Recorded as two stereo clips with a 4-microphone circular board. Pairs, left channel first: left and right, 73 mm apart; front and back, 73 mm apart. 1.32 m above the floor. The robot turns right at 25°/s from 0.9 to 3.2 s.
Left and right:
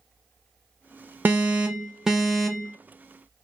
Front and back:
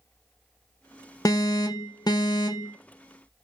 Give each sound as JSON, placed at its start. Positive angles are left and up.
{"t": 1.2, "sound": "an alarm", "azimuth_deg": -30, "distance_m": 0.6}